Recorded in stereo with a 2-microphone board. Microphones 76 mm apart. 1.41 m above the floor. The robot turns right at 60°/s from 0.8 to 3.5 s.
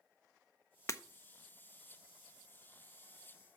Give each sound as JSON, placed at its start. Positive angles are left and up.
{"t": 0.9, "sound": "breaking glass", "side_deg": 40, "distance_m": 0.6}